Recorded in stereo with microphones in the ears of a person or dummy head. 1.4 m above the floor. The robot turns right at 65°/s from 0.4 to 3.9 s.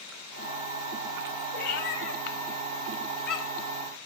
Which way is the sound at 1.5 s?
50° left (ahead or behind).